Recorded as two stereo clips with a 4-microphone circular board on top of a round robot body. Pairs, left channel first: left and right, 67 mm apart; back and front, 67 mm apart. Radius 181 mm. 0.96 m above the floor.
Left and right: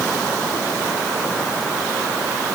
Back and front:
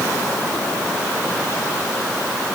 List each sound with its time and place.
Only background noise.